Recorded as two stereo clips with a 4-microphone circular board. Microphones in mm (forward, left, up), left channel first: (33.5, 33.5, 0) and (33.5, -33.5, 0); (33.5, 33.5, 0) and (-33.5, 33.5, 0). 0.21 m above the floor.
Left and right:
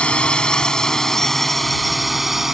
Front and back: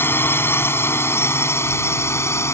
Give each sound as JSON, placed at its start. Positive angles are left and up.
{"t": 0.0, "sound": "a drone", "azimuth_deg": 25}